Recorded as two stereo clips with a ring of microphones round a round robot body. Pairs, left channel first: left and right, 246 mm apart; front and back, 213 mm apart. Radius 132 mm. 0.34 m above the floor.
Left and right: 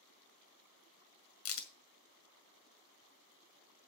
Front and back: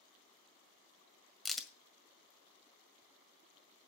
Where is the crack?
90° left, 1.9 m.